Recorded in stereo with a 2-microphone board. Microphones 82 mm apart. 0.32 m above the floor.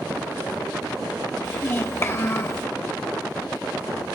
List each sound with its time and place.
1.4 s a child speaking: 30° left (ahead or behind), 0.6 m